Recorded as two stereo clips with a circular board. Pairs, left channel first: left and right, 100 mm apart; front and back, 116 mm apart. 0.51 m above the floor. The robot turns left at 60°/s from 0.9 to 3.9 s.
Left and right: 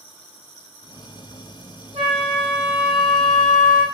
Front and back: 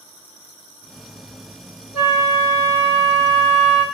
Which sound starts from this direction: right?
A flute, at 1.9 s.